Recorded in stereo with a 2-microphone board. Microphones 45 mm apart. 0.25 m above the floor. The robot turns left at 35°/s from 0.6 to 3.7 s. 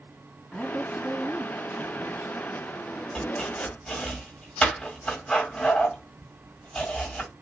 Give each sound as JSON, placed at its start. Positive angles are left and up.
{"t": 0.5, "sound": "a woman speaking", "azimuth_deg": 0, "distance_m": 2.0}
{"t": 3.1, "sound": "chopping", "side_deg": 20, "distance_m": 1.6}